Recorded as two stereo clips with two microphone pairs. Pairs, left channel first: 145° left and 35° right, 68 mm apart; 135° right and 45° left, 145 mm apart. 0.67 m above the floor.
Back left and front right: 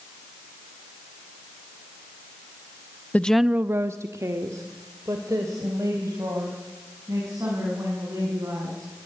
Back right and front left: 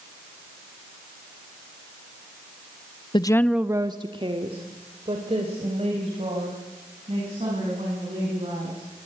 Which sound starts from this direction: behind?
A woman speaking, at 3.1 s.